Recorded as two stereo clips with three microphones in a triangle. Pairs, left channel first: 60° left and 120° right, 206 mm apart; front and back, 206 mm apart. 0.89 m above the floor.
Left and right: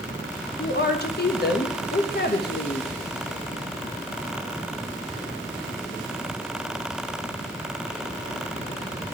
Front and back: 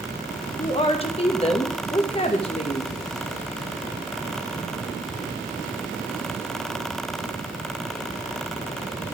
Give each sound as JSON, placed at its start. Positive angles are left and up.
{"t": 0.6, "sound": "a woman speaking", "azimuth_deg": 55, "distance_m": 0.8}